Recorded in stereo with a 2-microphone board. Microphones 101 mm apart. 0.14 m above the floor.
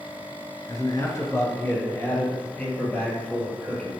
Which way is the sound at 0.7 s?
35° left (ahead or behind).